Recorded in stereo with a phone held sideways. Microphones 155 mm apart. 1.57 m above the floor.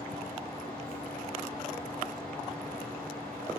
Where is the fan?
85° right, 7 m.